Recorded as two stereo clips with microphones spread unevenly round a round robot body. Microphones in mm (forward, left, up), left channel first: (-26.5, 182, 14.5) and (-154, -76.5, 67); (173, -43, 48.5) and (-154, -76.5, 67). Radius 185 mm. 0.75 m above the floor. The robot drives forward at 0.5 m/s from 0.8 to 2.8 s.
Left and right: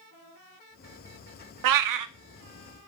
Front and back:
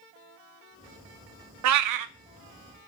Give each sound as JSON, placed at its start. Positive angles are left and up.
{"t": 1.6, "sound": "a cat meowing", "azimuth_deg": -130, "distance_m": 0.6}